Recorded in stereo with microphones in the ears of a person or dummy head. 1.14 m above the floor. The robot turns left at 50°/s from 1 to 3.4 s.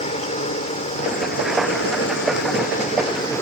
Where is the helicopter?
35° left (ahead or behind); by 3.4 s 15° left (ahead or behind).